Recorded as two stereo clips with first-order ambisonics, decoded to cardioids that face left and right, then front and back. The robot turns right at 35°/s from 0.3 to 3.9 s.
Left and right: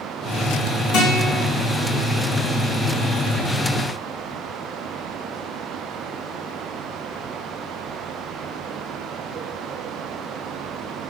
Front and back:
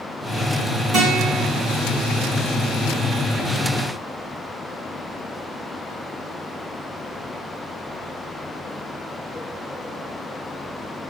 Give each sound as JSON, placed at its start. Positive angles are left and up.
{"t": 0.9, "sound": "a guitar", "azimuth_deg": 125, "distance_m": 2.0}